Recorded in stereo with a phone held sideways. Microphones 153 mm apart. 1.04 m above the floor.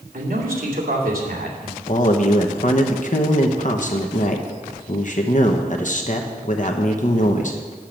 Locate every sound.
0.1 s a man speaking: 75° right (ahead or behind), 2.5 m
1.9 s a man speaking: 55° left (ahead or behind), 0.9 m